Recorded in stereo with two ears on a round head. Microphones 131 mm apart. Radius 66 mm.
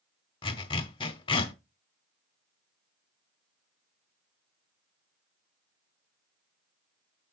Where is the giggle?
I don't hear a giggle.